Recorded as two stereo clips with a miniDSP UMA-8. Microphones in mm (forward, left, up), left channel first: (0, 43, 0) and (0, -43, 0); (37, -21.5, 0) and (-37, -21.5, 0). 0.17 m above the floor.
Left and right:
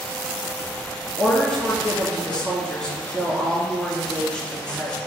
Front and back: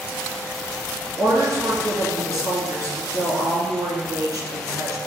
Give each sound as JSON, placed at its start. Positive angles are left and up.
{"t": 1.2, "sound": "a woman speaking", "azimuth_deg": 165, "distance_m": 2.0}